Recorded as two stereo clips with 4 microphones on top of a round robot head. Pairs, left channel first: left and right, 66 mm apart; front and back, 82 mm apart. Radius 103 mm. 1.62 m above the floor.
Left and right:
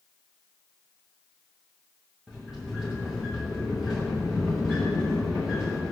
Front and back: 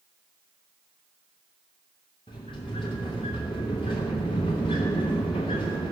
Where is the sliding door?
Straight ahead, 0.9 m.